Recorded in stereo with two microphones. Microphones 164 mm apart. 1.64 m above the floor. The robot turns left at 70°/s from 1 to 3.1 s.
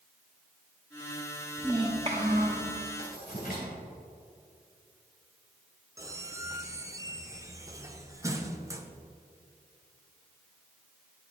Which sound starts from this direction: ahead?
A child speaking, at 1.6 s.